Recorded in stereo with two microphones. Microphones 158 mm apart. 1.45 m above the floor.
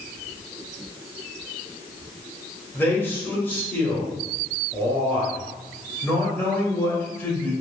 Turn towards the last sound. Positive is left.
turn(degrees=15)  # may be behind; listen again after turning